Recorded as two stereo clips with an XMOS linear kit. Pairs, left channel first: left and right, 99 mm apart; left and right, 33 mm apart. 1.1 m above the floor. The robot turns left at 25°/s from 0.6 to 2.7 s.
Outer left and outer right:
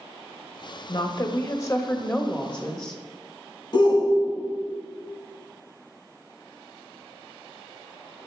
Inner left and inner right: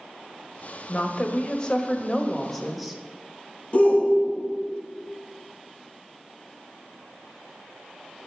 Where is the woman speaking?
50° left, 1.4 m; by 3.0 s 5° left, 1.4 m.